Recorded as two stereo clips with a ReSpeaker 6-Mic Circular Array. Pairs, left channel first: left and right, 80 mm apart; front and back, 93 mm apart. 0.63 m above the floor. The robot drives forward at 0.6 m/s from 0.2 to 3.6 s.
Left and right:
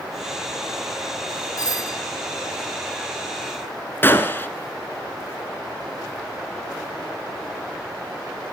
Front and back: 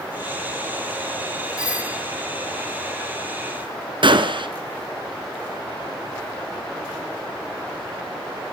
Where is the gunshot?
150° left, 1.7 m.